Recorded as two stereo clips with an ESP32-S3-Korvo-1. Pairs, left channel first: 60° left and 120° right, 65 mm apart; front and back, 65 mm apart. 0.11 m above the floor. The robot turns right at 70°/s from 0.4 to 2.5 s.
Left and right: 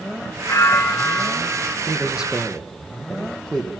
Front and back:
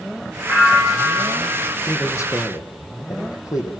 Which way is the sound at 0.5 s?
100° left.